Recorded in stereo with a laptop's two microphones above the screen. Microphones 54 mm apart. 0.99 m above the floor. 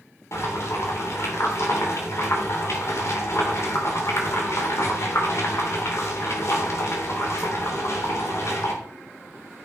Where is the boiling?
60° left (ahead or behind), 3.5 m.